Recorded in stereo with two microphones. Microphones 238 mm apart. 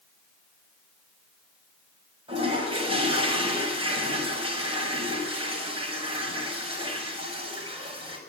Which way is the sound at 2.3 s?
25° right (ahead or behind).